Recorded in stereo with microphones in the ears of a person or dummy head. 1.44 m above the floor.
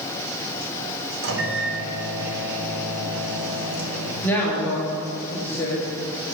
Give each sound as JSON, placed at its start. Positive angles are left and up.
{"t": 1.2, "sound": "a microwave", "side_deg": -75, "distance_m": 1.8}
{"t": 4.2, "sound": "a woman speaking", "side_deg": 10, "distance_m": 2.5}